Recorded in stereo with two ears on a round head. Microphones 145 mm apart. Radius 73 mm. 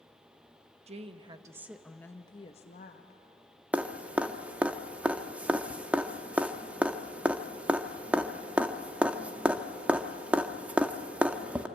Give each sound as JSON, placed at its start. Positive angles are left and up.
{"t": 0.9, "sound": "a woman speaking", "side_deg": -40, "distance_m": 1.2}
{"t": 3.7, "sound": "dripping", "side_deg": -10, "distance_m": 0.9}